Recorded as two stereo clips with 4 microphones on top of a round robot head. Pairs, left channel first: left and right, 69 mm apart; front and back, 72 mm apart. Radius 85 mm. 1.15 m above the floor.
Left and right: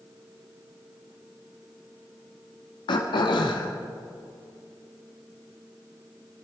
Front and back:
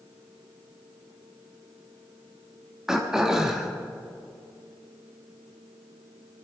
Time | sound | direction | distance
2.9 | throat clearing | 100° left | 1.4 m